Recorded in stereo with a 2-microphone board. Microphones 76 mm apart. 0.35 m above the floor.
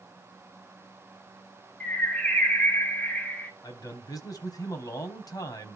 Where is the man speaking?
50° left (ahead or behind), 2.5 m.